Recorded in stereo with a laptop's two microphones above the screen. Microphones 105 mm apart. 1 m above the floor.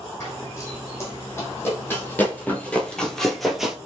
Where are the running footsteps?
25° left (ahead or behind), 2 m; by 3.8 s 5° right (ahead or behind), 1.0 m.